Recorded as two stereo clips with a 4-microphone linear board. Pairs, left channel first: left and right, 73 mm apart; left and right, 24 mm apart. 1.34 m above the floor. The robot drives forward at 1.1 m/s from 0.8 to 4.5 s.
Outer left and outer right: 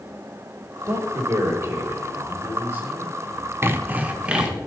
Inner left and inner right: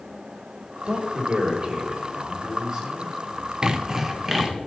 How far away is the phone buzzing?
I don't hear a phone buzzing.